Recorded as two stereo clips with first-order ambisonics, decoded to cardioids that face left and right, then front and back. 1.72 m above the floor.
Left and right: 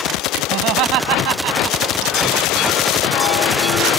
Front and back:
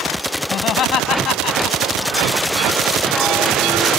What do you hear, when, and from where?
0.5 s laughter: 55° right